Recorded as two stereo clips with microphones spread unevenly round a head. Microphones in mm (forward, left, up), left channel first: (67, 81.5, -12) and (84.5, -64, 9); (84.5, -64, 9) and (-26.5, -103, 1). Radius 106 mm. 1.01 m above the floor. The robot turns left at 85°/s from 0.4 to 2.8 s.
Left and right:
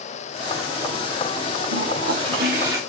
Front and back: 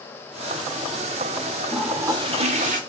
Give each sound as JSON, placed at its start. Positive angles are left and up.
{"t": 1.7, "sound": "a toilet flushing", "azimuth_deg": -70, "distance_m": 1.9}